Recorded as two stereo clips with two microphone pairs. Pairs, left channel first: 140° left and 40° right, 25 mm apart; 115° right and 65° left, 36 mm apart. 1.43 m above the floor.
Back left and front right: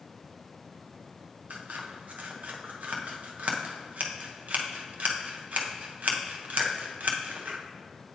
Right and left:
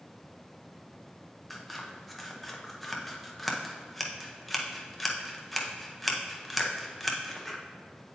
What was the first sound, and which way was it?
Scissors, 30° right.